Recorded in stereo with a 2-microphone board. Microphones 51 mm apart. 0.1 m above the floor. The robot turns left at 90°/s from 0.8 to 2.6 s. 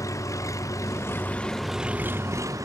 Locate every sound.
0.0 s an engine running: 75° left; by 2.7 s 85° right